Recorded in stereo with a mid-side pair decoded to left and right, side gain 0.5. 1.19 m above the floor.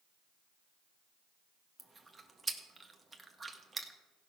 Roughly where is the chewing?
Ahead.